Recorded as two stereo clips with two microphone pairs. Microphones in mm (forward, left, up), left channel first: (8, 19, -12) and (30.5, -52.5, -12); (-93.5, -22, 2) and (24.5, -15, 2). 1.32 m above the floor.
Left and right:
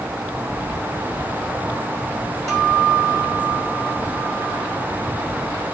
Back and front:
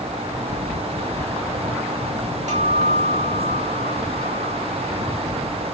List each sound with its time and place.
2.5 s a guitar: 25° left, 4.5 m